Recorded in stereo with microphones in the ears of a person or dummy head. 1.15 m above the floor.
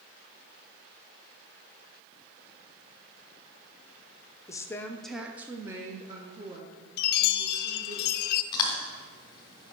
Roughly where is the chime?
Left.